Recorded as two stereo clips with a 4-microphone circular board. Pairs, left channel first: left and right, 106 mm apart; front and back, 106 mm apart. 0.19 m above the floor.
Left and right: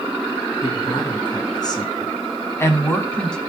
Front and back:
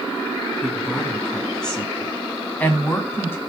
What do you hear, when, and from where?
0.6 s a woman speaking: 90° left, 2.5 m; by 3.4 s 15° left, 1.6 m